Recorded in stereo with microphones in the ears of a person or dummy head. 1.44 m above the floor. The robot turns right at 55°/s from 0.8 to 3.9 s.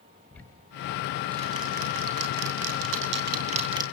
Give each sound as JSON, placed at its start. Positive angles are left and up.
{"t": 0.3, "sound": "ticking", "side_deg": 5, "distance_m": 2.5}